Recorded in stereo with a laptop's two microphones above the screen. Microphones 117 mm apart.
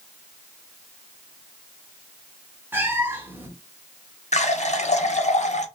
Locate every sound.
2.7 s a cat meowing: 20° right (ahead or behind), 0.8 m
4.3 s a running tap: 80° left, 0.8 m